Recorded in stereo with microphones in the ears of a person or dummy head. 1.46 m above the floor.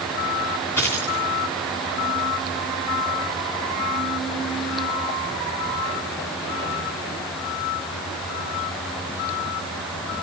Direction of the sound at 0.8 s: 5° left (ahead or behind).